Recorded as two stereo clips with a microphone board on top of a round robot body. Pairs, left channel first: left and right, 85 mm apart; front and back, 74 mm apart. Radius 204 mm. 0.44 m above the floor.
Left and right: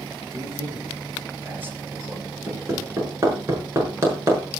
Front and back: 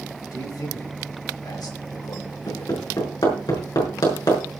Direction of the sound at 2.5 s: 30° right.